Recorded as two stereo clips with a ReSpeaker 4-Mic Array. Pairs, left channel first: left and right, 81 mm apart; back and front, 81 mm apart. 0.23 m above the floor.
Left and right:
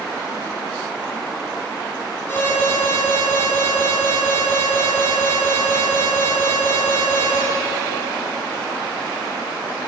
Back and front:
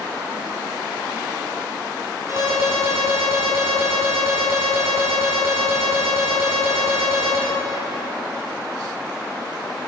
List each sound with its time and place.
2.3 s an alarm: 35° left, 3.5 m